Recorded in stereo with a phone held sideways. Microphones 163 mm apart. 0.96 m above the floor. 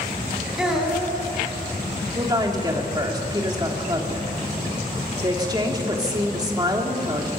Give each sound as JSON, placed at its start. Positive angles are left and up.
{"t": 0.6, "sound": "a child speaking", "side_deg": -5, "distance_m": 4.5}
{"t": 2.1, "sound": "a woman speaking", "side_deg": -25, "distance_m": 2.5}